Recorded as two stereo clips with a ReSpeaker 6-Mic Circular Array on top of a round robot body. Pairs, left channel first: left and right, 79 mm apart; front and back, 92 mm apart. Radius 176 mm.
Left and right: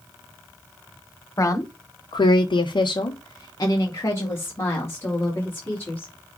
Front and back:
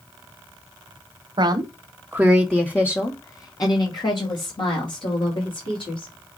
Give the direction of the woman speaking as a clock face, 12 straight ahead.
7 o'clock.